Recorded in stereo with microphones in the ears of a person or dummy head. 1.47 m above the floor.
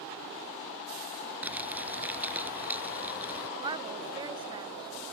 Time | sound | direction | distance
1.4 | crumpling | 10° right (ahead or behind) | ?
3.6 | a woman speaking | 25° right (ahead or behind) | ?